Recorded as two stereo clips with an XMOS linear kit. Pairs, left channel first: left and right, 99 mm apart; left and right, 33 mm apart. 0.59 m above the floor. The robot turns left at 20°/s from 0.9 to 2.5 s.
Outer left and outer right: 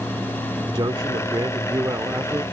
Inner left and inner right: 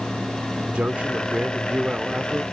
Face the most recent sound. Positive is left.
turn(degrees=-150)